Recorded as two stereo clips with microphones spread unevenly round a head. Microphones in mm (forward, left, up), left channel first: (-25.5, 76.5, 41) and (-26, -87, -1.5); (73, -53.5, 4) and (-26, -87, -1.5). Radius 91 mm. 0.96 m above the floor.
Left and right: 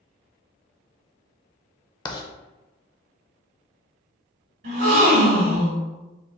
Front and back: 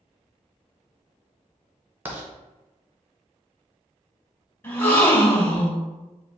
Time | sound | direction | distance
2.0 | writing | 160° left | 0.7 m
4.6 | a gasp | 50° right | 1.7 m